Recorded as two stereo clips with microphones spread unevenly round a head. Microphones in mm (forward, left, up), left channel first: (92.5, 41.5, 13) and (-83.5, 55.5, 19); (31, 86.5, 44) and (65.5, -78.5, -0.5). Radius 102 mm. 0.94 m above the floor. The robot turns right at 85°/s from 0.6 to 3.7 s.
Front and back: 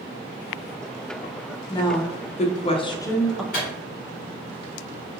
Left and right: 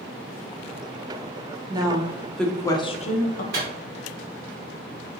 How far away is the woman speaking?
About 0.5 m.